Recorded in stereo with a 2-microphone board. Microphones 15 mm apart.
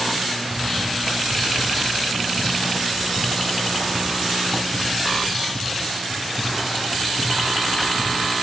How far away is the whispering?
About 0.8 m.